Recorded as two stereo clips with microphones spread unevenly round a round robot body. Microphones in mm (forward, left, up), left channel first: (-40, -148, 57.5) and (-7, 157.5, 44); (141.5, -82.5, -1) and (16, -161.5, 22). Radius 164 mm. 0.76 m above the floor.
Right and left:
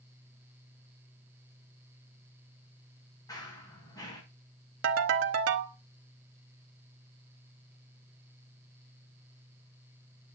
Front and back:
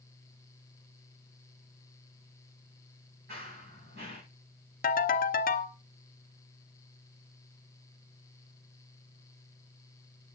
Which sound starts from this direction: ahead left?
A ringtone, at 4.8 s.